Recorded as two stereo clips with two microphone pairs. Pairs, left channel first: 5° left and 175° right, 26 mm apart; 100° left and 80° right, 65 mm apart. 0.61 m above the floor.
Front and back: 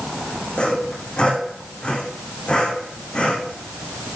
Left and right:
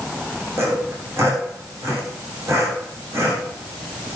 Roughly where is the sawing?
Ahead right.